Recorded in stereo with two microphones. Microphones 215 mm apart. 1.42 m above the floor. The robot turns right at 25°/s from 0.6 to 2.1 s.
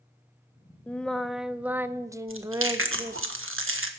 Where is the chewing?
80° right, 1.4 m.